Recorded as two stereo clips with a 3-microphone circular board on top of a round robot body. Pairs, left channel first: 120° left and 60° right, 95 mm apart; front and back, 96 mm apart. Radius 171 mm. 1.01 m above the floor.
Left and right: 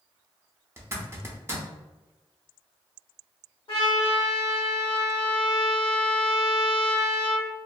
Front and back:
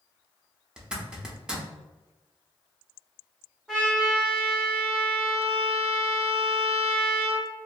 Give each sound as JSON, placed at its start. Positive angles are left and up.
{"t": 0.8, "sound": "a zipper", "azimuth_deg": -105, "distance_m": 0.8}
{"t": 3.7, "sound": "a trumpet", "azimuth_deg": 95, "distance_m": 1.4}